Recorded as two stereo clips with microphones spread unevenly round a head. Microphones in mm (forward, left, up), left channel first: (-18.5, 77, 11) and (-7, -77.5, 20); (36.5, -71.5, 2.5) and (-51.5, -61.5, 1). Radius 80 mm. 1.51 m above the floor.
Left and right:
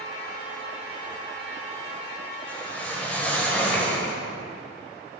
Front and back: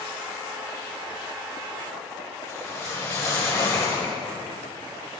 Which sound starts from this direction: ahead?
A whoosh, at 2.5 s.